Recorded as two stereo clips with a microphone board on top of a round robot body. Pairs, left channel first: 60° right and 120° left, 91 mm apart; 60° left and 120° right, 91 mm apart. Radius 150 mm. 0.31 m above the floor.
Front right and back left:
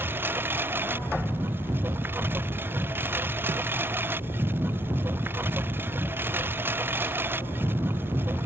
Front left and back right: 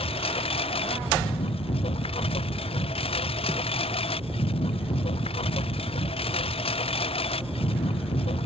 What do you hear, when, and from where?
0.0 s a lawn mower: 55° left